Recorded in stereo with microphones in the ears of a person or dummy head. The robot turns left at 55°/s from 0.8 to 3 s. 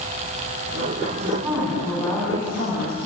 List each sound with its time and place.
1.1 s a woman speaking: 150° right, 8 m; by 3.1 s 105° left, 8 m